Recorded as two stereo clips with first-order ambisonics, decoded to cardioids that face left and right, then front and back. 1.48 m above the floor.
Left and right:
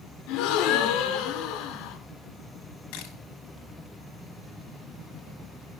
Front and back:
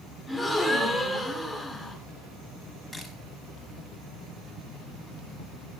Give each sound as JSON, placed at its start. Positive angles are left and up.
{"t": 0.3, "sound": "a gasp", "azimuth_deg": 90, "distance_m": 2.5}
{"t": 2.9, "sound": "a camera shutter", "azimuth_deg": 95, "distance_m": 5.0}